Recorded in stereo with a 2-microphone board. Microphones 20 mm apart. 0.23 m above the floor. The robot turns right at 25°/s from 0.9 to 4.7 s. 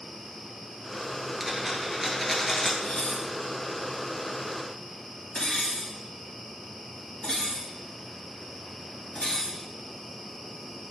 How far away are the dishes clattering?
About 2.5 m.